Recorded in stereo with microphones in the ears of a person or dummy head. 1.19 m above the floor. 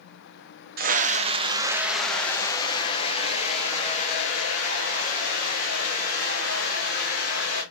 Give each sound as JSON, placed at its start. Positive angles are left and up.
{"t": 0.8, "sound": "a scream", "side_deg": -45, "distance_m": 0.8}